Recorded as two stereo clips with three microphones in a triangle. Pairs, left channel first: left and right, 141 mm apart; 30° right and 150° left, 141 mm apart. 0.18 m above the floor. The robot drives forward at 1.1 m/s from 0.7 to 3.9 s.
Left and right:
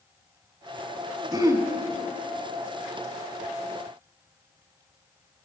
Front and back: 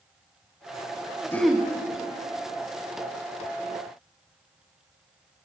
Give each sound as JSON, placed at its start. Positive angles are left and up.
{"t": 1.3, "sound": "throat clearing", "azimuth_deg": -85, "distance_m": 0.5}